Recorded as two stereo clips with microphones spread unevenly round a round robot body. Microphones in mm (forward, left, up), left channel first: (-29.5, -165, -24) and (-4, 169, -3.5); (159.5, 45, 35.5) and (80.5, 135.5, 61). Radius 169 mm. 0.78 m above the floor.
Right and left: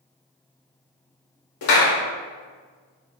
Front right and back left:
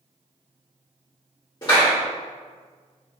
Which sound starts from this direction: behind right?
A clap, at 1.6 s.